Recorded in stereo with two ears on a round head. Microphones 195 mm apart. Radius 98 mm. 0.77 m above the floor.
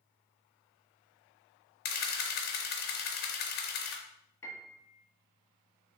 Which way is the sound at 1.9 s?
45° left (ahead or behind).